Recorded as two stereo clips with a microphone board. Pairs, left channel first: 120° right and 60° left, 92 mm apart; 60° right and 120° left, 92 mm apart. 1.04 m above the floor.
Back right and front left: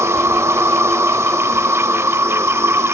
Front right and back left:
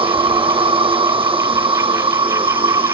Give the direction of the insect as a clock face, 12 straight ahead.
8 o'clock.